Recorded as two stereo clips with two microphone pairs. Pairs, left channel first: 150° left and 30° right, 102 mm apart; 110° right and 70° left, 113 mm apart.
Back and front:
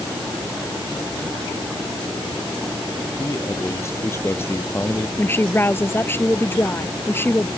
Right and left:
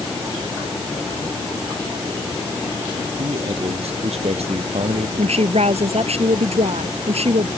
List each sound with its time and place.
3.2 s a man speaking: 90° left; by 5.1 s 80° left
5.2 s a woman speaking: 80° left